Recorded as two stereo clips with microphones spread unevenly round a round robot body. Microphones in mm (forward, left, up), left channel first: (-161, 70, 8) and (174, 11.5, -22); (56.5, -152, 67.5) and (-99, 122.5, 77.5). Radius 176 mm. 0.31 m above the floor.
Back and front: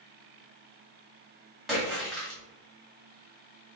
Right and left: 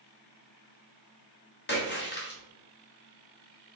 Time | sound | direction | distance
1.7 | a splash | 95° right | 1.2 m